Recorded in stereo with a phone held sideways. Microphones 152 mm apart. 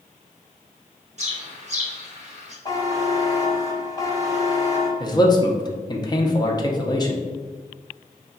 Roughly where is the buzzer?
Left.